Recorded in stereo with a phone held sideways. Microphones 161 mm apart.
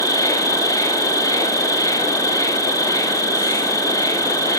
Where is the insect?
20° left (ahead or behind), 2.0 m.